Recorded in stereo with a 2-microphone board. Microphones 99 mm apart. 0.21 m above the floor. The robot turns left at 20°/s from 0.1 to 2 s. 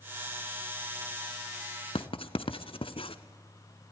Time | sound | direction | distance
1.9 | writing | 70° left (ahead or behind) | 0.9 m